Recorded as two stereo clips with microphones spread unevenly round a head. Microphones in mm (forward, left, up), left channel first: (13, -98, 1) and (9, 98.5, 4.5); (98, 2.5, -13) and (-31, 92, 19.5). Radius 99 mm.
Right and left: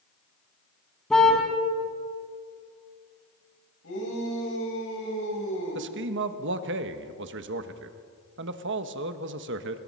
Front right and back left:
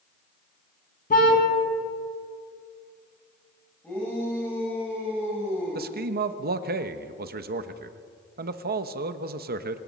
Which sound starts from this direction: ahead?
A car horn, at 1.1 s.